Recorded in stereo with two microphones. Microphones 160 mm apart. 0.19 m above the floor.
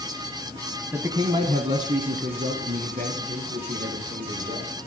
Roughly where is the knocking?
I don't hear knocking.